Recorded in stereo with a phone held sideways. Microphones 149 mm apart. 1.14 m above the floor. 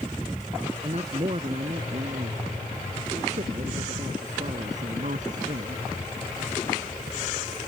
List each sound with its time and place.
0.8 s a man speaking: 45° right (ahead or behind); by 5.8 s 60° right (ahead or behind)